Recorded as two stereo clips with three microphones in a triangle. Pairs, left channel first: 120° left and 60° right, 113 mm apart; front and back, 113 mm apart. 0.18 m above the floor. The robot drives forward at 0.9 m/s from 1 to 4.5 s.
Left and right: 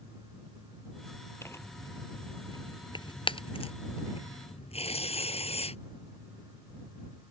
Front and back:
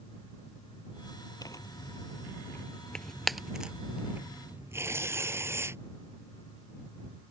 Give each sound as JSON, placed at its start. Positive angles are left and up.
{"t": 1.4, "sound": "tearing paper", "azimuth_deg": 55}